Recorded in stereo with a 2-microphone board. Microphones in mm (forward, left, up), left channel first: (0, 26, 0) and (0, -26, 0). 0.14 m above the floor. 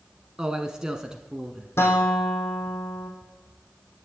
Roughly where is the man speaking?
Centre.